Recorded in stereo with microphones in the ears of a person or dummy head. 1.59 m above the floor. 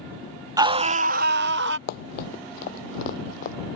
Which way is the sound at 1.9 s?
55° left (ahead or behind).